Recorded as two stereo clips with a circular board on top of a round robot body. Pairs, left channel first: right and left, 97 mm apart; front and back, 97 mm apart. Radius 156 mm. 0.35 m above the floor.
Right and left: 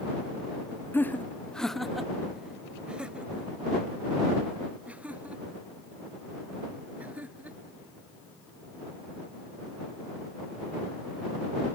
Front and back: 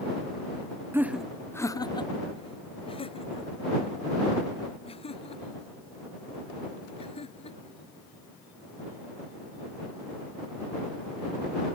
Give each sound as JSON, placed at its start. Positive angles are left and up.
{"t": 0.9, "sound": "laughter", "azimuth_deg": -140}